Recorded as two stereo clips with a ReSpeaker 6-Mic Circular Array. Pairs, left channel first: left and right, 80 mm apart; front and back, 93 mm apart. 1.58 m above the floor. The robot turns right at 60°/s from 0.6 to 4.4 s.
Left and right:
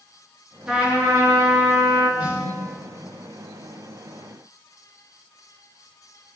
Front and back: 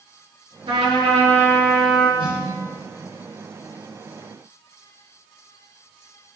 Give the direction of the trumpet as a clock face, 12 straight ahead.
6 o'clock.